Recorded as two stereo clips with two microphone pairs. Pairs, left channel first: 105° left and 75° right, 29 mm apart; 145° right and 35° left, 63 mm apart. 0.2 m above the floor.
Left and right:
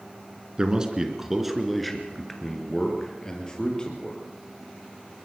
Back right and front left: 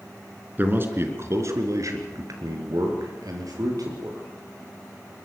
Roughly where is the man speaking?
Ahead.